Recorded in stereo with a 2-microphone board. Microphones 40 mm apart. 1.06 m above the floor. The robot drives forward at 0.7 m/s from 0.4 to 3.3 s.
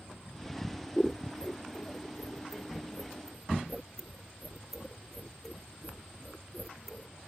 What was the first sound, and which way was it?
Scissors, 20° left (ahead or behind).